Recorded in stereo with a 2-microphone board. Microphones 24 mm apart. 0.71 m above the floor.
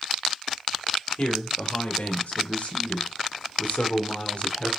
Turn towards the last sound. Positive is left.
turn(degrees=50)  # may be behind; listen again after turning